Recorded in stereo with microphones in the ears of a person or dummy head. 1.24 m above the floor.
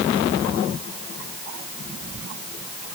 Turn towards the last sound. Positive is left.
No sound to turn to.